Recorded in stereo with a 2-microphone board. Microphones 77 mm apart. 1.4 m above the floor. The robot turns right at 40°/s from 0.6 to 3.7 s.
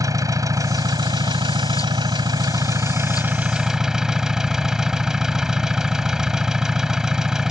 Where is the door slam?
I don't hear a door slam.